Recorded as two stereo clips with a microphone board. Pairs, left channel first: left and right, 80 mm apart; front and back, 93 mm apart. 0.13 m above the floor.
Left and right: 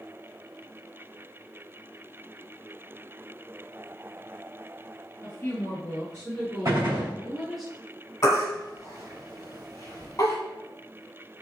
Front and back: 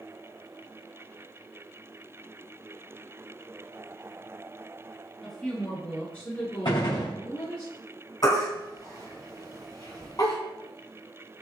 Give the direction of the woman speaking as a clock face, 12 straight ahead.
10 o'clock.